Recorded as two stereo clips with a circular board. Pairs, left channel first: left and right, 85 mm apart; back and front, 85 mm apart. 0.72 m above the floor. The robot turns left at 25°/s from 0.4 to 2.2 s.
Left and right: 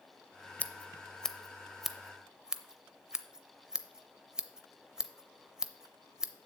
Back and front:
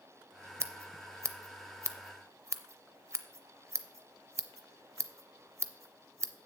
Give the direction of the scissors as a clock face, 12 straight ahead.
11 o'clock.